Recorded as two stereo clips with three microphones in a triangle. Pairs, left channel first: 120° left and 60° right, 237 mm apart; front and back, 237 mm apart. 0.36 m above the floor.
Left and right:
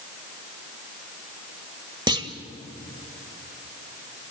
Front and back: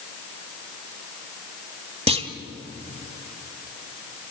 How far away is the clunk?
About 1.7 m.